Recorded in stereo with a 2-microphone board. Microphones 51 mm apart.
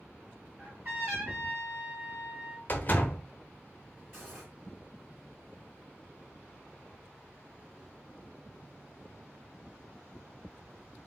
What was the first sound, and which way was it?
A trumpet, 40° right (ahead or behind).